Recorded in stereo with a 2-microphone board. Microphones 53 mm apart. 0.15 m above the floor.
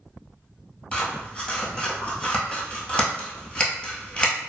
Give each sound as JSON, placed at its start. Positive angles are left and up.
{"t": 0.9, "sound": "scissors", "side_deg": 25, "distance_m": 1.1}